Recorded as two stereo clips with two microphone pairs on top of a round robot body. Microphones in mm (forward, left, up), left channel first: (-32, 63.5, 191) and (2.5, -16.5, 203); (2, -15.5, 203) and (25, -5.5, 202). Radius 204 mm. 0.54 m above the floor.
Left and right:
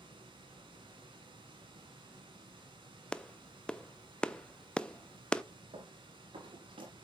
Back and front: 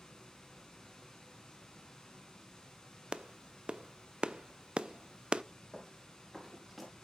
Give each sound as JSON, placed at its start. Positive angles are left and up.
{"t": 0.0, "sound": "running water", "azimuth_deg": -90, "distance_m": 2.0}
{"t": 3.1, "sound": "a clap", "azimuth_deg": 45, "distance_m": 0.7}
{"t": 5.7, "sound": "running footsteps", "azimuth_deg": -70, "distance_m": 4.5}